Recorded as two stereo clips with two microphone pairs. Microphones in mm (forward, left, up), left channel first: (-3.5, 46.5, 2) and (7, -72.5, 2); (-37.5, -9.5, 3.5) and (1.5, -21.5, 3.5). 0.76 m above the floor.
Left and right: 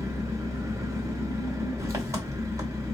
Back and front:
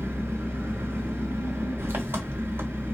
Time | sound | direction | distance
0.0 | an engine running | 20° right | 1.3 m